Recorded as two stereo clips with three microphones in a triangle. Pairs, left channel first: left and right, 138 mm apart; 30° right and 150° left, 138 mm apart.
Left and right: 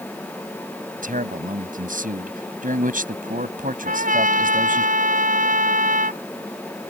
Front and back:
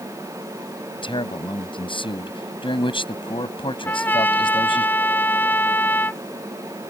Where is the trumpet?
105° right.